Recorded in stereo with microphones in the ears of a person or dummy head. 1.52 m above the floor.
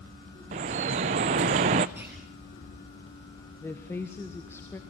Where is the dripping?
30° right (ahead or behind), 0.5 m.